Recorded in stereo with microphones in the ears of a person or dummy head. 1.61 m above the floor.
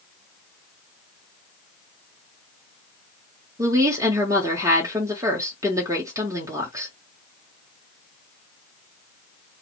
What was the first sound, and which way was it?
A woman speaking, 15° right (ahead or behind).